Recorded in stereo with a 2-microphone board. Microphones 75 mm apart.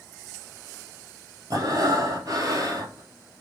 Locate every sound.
1.5 s breathing: 50° right (ahead or behind), 1.3 m